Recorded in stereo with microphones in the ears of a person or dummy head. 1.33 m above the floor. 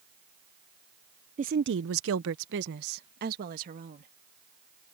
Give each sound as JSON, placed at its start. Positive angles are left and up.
{"t": 1.4, "sound": "a woman speaking", "side_deg": -35}